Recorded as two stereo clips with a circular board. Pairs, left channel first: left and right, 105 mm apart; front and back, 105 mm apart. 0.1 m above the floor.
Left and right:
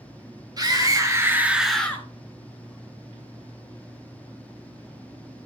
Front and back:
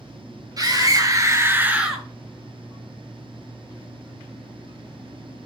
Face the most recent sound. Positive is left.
turn(degrees=90)